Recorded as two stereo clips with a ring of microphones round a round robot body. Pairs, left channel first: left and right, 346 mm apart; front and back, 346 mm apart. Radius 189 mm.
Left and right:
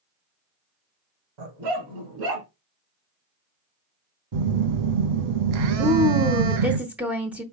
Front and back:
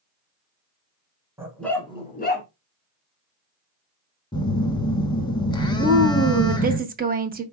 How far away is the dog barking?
About 1.4 m.